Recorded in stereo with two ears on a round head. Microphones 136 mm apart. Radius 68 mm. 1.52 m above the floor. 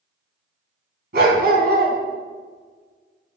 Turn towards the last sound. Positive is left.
turn(degrees=-80)